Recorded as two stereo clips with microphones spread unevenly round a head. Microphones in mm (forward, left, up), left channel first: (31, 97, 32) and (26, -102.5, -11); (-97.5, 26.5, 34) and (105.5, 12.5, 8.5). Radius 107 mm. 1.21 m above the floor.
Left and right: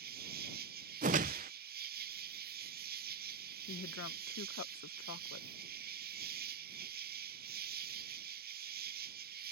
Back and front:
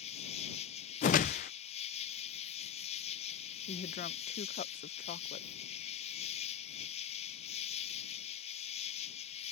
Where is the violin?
No violin in this recording.